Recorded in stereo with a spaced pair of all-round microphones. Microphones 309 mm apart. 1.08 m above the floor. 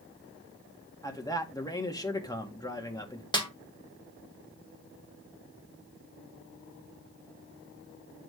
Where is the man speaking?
10° left (ahead or behind), 1.8 m.